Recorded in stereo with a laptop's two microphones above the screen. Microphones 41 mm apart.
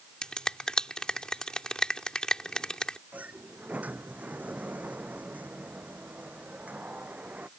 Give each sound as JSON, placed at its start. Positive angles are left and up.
{"t": 0.2, "sound": "a finger snap", "side_deg": 20}
{"t": 3.1, "sound": "a sliding door", "side_deg": -40}